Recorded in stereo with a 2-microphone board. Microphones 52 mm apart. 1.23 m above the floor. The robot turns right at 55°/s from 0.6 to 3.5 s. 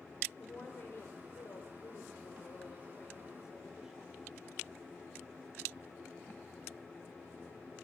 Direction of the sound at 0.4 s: 35° left.